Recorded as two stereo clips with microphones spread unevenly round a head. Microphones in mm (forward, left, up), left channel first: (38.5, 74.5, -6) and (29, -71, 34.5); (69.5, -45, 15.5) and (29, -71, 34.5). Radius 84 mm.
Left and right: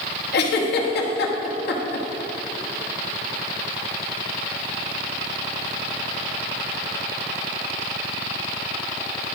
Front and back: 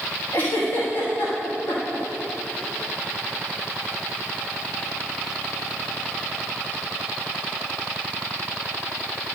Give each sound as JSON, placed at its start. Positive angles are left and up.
{"t": 0.3, "sound": "a giggle", "azimuth_deg": 95, "distance_m": 1.1}